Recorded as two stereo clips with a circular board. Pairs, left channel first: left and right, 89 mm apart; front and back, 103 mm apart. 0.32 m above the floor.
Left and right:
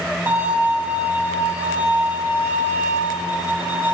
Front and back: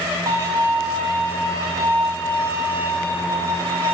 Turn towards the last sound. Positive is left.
turn(degrees=-140)